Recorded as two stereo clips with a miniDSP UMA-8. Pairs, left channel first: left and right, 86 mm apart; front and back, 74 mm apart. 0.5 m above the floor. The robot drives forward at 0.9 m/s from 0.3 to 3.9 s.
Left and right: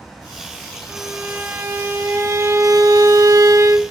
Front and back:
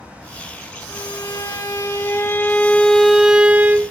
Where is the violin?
20° right, 2.5 m; by 3.9 s 135° right, 1.3 m.